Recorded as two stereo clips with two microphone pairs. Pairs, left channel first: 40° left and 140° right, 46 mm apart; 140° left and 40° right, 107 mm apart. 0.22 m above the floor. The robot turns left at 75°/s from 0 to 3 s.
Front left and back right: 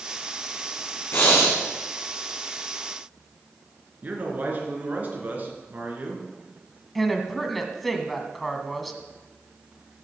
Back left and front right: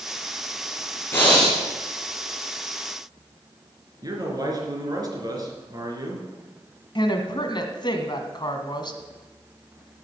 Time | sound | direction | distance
1.1 | breathing | 70° left | 3 m
4.0 | a man speaking | 90° right | 3.5 m
7.0 | a woman speaking | 130° left | 1.5 m